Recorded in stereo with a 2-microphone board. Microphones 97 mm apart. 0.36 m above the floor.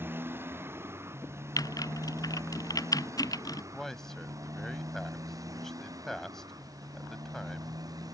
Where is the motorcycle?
20° right (ahead or behind); by 8.1 s 40° right (ahead or behind).